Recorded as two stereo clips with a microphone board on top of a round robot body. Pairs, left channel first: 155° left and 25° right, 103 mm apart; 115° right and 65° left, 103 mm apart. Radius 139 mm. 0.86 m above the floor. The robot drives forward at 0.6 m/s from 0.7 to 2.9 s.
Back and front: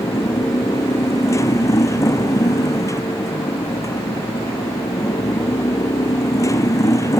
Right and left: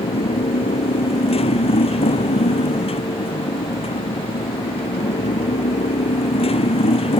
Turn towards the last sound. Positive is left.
turn(degrees=-140)